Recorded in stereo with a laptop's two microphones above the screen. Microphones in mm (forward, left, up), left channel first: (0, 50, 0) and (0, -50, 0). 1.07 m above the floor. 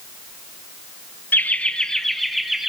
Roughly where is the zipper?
I don't hear a zipper.